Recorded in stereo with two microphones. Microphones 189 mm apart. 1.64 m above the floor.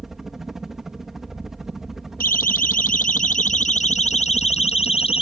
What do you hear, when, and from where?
0.0 s a helicopter: centre (ahead or behind)
2.2 s a siren: 55° left (ahead or behind); by 5.2 s 30° left (ahead or behind)